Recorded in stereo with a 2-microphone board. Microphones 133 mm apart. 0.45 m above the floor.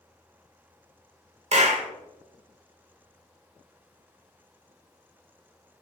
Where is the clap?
55° right (ahead or behind), 0.9 m.